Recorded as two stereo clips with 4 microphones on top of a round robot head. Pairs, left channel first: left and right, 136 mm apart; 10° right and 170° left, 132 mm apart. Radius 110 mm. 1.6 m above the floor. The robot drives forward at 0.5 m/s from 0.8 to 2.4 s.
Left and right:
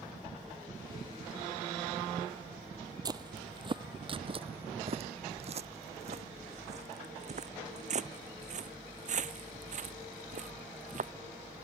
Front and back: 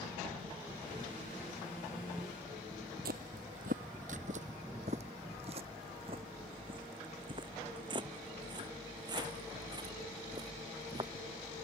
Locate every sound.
3.0 s footsteps: 150° right; by 11.1 s 115° right